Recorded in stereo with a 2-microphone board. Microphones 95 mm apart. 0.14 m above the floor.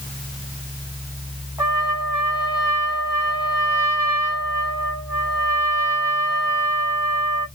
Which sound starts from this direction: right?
A trumpet, at 1.6 s.